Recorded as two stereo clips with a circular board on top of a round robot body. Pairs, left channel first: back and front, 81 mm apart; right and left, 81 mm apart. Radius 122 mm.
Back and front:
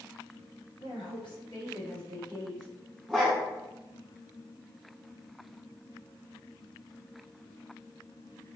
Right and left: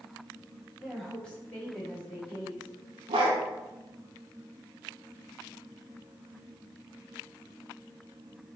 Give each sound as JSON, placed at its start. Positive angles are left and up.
{"t": 0.8, "sound": "a woman speaking", "azimuth_deg": 180, "distance_m": 1.6}
{"t": 3.1, "sound": "a dog barking", "azimuth_deg": 90, "distance_m": 0.7}